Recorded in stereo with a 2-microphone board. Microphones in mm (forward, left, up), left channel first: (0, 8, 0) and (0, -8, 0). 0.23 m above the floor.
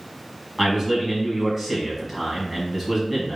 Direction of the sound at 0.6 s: 10° right (ahead or behind).